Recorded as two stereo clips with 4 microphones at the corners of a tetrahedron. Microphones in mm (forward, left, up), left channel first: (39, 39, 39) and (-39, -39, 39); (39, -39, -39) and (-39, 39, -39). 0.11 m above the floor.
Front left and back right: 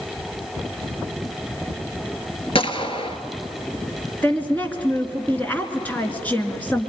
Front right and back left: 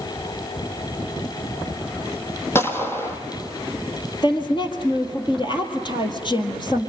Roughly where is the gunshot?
Ahead.